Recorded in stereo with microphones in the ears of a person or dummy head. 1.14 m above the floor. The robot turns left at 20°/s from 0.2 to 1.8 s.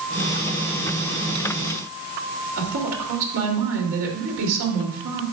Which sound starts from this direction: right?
A woman speaking, at 2.6 s.